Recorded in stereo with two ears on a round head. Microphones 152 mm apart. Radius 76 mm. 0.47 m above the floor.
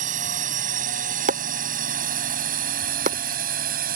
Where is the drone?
45° right (ahead or behind); by 4.0 s 55° right (ahead or behind).